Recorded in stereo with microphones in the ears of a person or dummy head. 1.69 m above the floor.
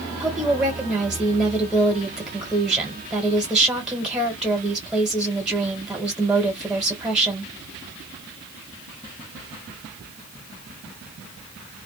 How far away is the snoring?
No snoring in this recording.